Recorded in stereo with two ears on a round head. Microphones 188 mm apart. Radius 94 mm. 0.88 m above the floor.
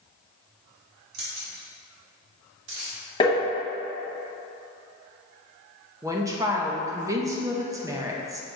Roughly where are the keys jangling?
Right.